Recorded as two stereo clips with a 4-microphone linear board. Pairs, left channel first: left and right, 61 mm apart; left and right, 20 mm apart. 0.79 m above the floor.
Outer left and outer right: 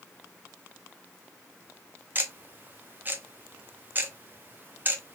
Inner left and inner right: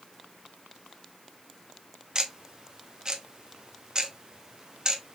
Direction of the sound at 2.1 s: 35° right (ahead or behind).